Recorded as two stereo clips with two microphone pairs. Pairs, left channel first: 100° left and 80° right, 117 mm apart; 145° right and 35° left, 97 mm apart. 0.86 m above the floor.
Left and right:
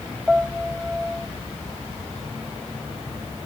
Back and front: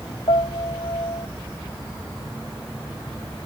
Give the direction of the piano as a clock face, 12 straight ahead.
5 o'clock.